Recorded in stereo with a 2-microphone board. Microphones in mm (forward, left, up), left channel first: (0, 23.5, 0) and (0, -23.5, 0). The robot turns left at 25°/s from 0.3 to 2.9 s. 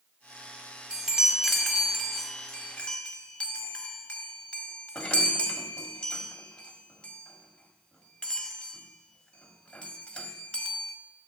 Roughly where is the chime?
Centre.